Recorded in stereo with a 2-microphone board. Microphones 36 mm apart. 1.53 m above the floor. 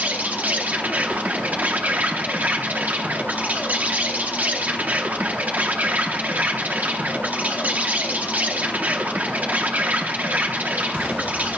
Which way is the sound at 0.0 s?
50° right (ahead or behind).